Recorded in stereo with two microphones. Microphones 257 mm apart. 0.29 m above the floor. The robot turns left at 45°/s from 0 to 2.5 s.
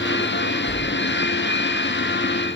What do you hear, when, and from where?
0.7 s a splash: 45° left (ahead or behind), 8.5 m; by 1.5 s 80° left, 8.5 m